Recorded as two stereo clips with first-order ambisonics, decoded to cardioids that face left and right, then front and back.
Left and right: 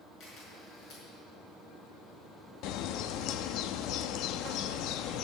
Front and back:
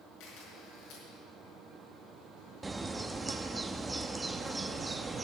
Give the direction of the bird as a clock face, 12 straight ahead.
9 o'clock.